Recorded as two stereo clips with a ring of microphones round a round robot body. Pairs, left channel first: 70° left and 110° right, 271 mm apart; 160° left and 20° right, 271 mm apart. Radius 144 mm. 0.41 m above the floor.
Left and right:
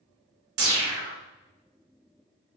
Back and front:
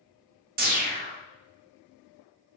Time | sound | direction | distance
0.6 | a whoosh | 80° right | 0.7 m